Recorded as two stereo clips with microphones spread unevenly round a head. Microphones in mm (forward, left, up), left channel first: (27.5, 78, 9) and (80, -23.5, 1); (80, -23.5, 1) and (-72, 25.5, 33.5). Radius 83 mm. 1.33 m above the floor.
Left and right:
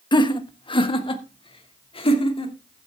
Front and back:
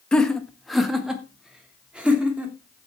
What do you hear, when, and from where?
0.1 s laughter: 70° left, 1.5 m; by 2.9 s 80° left, 3.5 m